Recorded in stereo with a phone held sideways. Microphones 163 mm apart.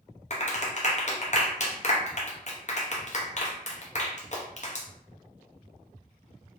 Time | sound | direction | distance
0.3 | a clap | 50° left (ahead or behind) | 0.5 m